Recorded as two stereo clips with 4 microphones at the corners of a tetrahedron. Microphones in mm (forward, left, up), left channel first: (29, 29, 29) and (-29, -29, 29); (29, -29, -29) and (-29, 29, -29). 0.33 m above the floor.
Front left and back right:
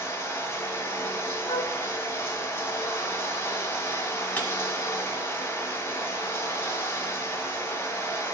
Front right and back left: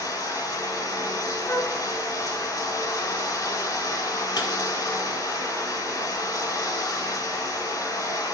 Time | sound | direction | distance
0.0 | running water | 10° right | 1.7 m
1.5 | a flute | 25° left | 0.7 m
4.4 | breaking glass | 25° right | 1.5 m